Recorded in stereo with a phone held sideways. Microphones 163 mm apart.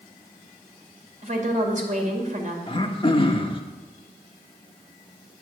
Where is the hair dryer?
I don't hear a hair dryer.